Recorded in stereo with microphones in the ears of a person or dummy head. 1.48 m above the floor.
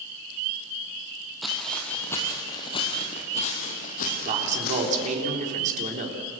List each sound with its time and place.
1.4 s footsteps: centre (ahead or behind), 3 m; by 5.1 s 55° left (ahead or behind), 4 m
4.2 s a man speaking: 40° right (ahead or behind), 3.5 m